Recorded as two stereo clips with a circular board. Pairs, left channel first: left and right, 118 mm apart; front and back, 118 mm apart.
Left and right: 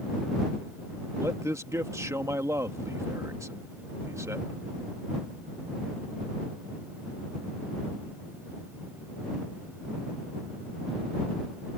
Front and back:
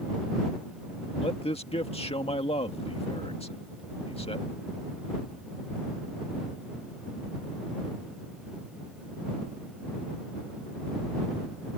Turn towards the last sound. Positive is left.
turn(degrees=-25)